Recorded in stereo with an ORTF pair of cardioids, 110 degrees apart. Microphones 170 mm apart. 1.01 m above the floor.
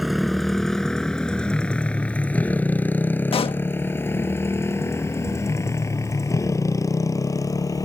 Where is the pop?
30° left.